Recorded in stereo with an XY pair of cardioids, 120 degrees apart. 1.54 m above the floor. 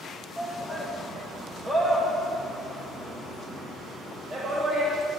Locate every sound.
0.4 s a shout: straight ahead, 2 m; by 5.0 s 50° right, 3 m